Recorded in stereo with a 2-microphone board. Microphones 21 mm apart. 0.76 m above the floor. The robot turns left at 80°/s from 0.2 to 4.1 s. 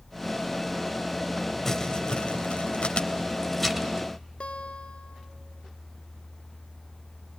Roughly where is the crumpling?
Centre.